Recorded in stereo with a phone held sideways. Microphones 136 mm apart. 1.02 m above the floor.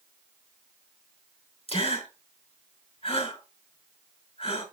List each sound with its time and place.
1.7 s a gasp: 45° left (ahead or behind), 6 m